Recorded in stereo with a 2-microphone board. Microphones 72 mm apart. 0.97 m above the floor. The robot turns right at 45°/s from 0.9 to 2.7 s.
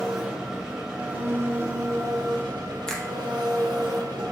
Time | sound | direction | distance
0.0 | an engine running | 170° right | 1.2 m
2.9 | a finger snap | 10° left (ahead or behind) | 0.7 m